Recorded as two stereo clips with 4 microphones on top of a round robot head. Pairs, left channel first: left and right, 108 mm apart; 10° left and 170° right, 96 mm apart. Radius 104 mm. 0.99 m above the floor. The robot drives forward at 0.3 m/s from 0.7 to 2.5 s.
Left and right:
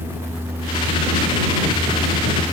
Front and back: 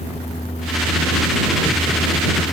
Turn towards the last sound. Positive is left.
No sound to turn to.